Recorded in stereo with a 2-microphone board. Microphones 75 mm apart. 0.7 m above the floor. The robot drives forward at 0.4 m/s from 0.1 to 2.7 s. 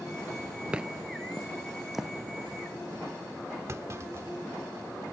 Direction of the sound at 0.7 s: 15° right (ahead or behind).